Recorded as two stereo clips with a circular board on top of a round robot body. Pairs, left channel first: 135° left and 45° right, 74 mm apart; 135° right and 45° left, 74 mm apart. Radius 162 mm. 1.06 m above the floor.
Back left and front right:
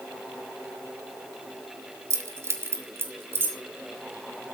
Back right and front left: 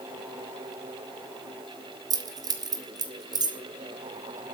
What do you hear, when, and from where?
2.1 s keys jangling: 10° left, 1.5 m; by 3.6 s 15° left, 2.5 m